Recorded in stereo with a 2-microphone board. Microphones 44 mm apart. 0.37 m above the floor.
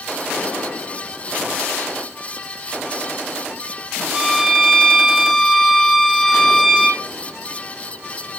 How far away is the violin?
About 8.5 m.